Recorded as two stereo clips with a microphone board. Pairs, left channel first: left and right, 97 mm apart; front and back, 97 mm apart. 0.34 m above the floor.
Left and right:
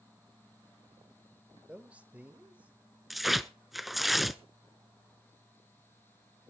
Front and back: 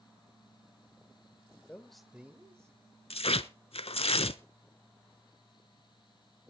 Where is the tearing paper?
Straight ahead, 0.7 m.